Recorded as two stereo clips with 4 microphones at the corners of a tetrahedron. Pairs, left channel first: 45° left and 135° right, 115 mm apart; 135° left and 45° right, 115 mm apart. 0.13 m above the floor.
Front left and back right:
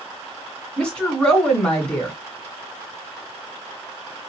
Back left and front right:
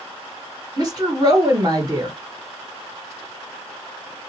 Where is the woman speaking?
30° right, 1.8 m.